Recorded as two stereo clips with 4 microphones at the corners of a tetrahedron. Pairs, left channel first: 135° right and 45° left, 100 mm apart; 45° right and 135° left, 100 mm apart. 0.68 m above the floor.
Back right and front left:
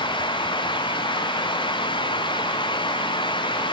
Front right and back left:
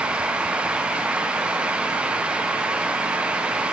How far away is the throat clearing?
No throat clearing in this recording.